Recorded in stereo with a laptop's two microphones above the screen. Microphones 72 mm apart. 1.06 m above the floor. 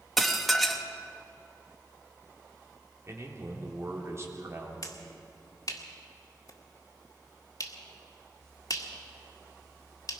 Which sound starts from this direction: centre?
Dishes clattering, at 0.2 s.